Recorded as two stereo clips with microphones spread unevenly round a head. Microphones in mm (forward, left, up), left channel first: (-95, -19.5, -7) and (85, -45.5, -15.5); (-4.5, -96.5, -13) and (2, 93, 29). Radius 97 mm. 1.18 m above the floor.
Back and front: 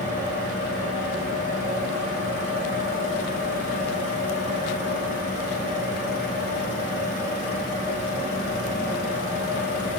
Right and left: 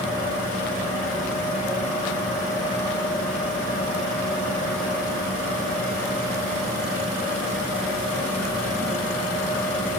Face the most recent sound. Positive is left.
turn(degrees=35)